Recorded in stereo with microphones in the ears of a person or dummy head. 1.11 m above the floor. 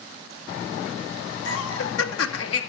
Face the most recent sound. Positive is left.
turn(degrees=75)  # may be behind; listen again after turning